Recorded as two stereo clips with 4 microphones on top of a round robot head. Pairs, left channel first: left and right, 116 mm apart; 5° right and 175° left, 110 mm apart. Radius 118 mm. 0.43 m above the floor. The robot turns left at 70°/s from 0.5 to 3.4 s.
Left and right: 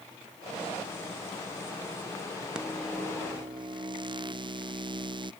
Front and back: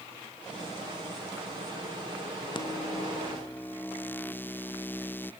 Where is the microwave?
10° right; by 5.3 s 70° right.